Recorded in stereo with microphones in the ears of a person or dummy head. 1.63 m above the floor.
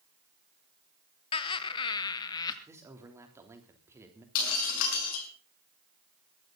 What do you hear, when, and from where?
1.3 s laughter: 30° left (ahead or behind), 1.2 m; by 2.6 s 20° left (ahead or behind), 2 m
2.7 s a man speaking: 15° right (ahead or behind), 3 m
4.3 s breaking glass: 75° left (ahead or behind), 6 m